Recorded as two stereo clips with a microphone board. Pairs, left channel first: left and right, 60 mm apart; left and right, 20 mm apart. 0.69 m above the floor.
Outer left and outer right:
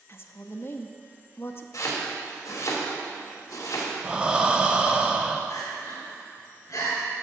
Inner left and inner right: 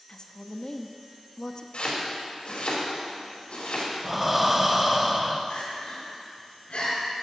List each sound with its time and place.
0.1 s a woman speaking: 40° left (ahead or behind), 0.6 m
1.7 s chopping: 65° left (ahead or behind), 1.9 m
4.0 s breathing: 15° right (ahead or behind), 0.7 m
5.5 s crying: 70° left (ahead or behind), 3 m